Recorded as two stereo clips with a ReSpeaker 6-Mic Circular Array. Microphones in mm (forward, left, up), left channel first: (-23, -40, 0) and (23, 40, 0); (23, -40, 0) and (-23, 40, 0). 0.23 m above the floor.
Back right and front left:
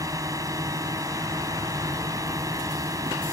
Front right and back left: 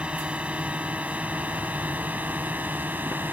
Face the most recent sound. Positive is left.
turn(degrees=60)